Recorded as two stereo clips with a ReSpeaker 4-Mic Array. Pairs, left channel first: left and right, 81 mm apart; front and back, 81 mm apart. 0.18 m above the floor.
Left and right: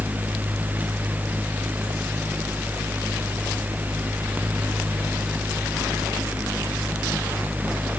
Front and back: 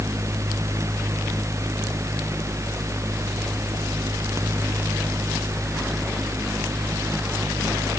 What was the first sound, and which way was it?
Only background noise.